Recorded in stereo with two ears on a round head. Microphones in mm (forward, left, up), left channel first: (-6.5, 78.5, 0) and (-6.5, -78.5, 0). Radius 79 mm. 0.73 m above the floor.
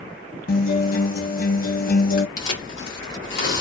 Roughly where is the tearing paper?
Left.